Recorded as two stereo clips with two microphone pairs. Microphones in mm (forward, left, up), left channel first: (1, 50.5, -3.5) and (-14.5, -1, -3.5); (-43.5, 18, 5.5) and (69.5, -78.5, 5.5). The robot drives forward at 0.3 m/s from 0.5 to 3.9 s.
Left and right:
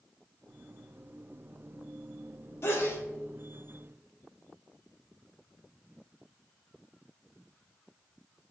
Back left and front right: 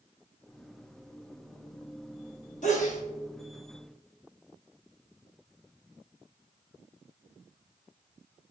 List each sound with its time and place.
2.6 s a sneeze: 110° left, 1.5 m; by 3.0 s 115° left, 1.5 m